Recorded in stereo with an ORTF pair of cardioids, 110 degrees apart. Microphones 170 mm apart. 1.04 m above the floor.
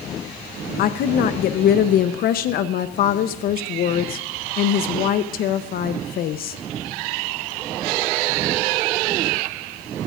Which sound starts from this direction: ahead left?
A woman speaking, at 0.8 s.